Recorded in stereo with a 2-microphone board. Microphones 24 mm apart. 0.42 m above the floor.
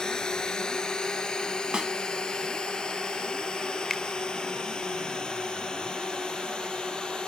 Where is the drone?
30° left (ahead or behind); by 7.3 s 35° left (ahead or behind).